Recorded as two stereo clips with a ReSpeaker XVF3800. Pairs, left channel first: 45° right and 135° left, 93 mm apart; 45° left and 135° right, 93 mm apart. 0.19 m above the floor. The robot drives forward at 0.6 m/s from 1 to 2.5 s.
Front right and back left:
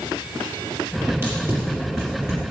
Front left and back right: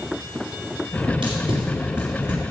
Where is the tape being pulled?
165° right, 5 m.